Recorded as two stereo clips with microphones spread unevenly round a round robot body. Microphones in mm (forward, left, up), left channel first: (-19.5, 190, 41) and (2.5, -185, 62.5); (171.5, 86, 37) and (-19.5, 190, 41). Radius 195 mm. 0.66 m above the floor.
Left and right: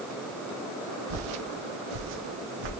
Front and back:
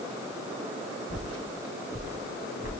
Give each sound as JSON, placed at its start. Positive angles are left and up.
{"t": 1.1, "sound": "footsteps", "azimuth_deg": -90, "distance_m": 2.0}